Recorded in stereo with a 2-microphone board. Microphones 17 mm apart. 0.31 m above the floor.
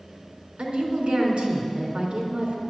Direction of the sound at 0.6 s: 70° right (ahead or behind).